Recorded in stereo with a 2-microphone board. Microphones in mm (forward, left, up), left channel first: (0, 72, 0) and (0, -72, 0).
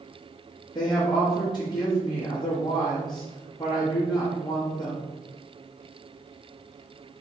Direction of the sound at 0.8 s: 25° left (ahead or behind).